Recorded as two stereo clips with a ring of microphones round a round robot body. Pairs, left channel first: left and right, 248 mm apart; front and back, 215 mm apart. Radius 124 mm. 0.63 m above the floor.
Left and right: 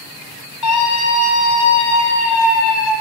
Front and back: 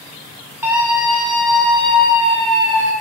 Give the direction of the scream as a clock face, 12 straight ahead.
9 o'clock.